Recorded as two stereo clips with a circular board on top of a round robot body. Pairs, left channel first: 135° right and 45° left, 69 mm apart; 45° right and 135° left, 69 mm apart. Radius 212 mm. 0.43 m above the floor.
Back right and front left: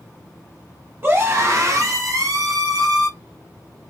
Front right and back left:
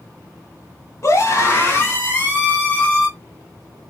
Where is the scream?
5° right, 2.0 m; by 3.1 s 25° left, 2.5 m.